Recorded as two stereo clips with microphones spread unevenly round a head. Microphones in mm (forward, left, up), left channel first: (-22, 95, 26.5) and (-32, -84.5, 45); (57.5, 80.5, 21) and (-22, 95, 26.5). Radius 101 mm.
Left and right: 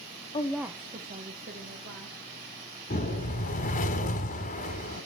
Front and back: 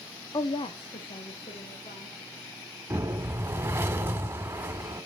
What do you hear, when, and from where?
0.3 s a woman speaking: 30° left, 0.7 m; by 2.2 s 55° right, 3 m
2.9 s a whoosh: 120° left, 1.4 m